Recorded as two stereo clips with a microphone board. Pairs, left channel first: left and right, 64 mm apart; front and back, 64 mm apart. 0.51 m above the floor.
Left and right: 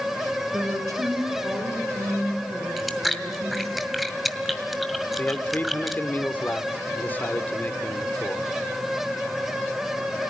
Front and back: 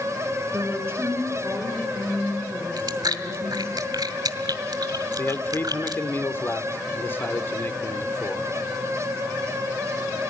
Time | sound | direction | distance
0.5 | a woman speaking | 125° right | 6.5 m
2.8 | chewing | straight behind | 1.8 m
5.2 | a man speaking | 40° left | 1.5 m